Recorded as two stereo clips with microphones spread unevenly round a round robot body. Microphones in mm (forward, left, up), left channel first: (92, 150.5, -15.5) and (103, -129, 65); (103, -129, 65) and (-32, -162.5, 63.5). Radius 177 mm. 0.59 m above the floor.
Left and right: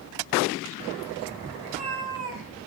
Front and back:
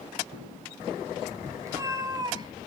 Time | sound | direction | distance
1.6 | a cat meowing | 95° right | 3 m